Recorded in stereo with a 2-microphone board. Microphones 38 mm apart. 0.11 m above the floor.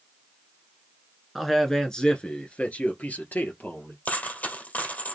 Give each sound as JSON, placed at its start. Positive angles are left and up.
{"t": 1.4, "sound": "a man speaking", "side_deg": 0, "distance_m": 1.3}
{"t": 4.0, "sound": "a dropped coin", "side_deg": 45, "distance_m": 1.6}